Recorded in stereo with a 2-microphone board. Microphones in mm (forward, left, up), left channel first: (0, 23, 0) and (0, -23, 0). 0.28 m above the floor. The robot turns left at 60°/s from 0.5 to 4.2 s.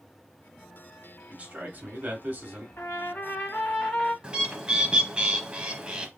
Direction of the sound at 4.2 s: 20° right (ahead or behind).